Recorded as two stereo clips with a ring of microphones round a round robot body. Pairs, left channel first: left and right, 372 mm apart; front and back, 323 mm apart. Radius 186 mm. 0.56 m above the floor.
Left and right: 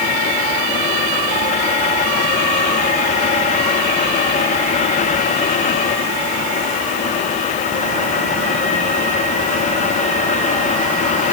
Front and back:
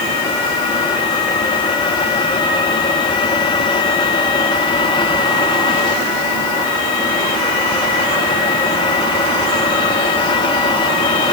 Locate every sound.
Only background noise.